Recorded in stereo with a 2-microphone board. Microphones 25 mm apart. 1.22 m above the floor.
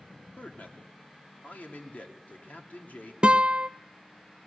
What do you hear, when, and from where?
0.4 s a man speaking: 85° left, 2.5 m
3.2 s a guitar: 40° right (ahead or behind), 0.5 m